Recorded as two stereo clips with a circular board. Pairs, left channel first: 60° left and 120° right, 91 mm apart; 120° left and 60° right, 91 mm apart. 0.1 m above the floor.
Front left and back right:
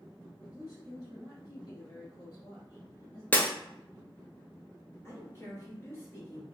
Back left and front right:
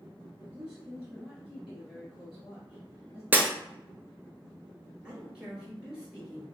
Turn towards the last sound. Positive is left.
turn(degrees=15)